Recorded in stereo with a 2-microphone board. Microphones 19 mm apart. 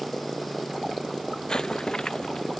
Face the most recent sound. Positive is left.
turn(degrees=40)  # may be behind; listen again after turning